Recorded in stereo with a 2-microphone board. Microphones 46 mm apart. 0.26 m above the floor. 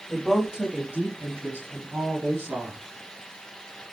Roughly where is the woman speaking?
Centre.